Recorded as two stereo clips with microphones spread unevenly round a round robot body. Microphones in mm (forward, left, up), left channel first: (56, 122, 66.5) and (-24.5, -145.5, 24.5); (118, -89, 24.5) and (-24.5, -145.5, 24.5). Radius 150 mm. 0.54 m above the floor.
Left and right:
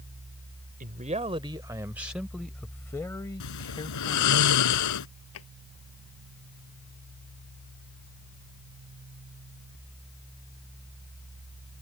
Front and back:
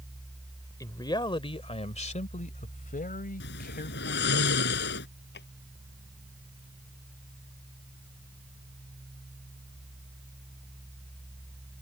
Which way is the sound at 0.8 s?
45° right.